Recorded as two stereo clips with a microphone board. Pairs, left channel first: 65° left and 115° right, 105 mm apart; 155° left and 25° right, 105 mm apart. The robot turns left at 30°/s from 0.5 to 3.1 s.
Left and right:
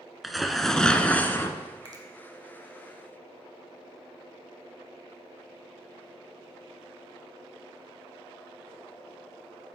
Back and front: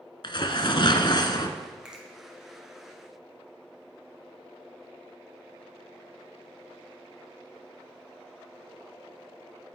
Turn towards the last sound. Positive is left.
turn(degrees=-135)